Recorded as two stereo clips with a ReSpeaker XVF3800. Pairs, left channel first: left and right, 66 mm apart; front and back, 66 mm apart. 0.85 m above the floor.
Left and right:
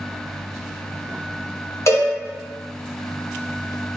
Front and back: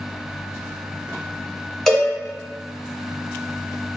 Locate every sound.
1.9 s a cowbell: 85° left, 0.9 m